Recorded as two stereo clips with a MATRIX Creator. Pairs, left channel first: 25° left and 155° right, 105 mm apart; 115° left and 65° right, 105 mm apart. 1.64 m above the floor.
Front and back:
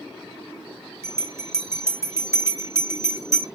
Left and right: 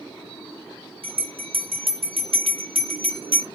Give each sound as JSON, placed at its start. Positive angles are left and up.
{"t": 1.0, "sound": "a bell", "azimuth_deg": -95, "distance_m": 1.1}